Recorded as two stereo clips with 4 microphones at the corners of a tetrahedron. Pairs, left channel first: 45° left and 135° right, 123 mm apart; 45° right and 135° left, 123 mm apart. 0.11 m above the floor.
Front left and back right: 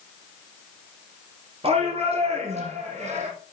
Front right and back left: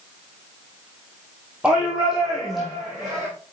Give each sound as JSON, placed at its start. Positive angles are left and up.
{"t": 1.6, "sound": "a shout", "azimuth_deg": -145, "distance_m": 2.5}